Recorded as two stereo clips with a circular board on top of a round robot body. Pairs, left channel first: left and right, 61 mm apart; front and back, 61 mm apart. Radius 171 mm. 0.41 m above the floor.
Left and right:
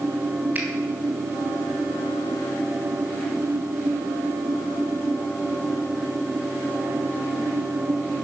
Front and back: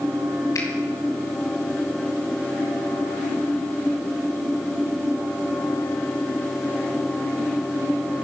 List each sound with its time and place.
0.6 s a finger snap: 30° right, 3 m